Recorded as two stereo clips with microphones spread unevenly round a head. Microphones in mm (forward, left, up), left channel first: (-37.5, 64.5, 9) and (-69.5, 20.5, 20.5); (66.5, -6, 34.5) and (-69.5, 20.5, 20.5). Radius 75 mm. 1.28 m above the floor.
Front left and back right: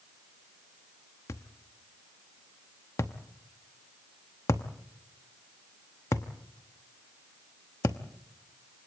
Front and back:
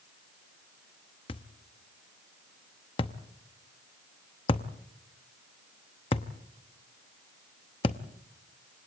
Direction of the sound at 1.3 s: 20° left.